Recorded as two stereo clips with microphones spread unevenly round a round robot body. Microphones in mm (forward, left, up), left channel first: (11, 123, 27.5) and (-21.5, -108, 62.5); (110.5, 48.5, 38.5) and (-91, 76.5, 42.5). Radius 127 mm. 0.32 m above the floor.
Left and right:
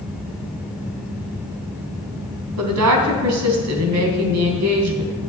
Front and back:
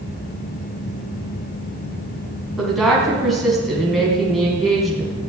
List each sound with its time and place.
2.6 s a woman speaking: 95° right, 3.5 m